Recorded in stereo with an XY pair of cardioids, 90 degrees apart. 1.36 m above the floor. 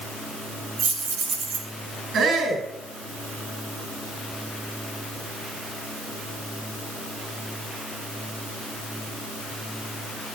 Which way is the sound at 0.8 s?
70° right.